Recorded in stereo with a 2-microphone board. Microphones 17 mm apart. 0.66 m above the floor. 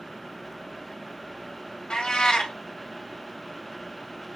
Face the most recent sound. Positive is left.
turn(degrees=60)  # may be behind; listen again after turning